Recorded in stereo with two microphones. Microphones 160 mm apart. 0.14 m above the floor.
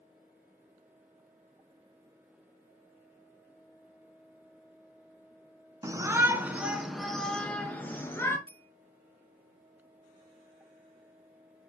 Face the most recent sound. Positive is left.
turn(degrees=-35)  # may be behind; listen again after turning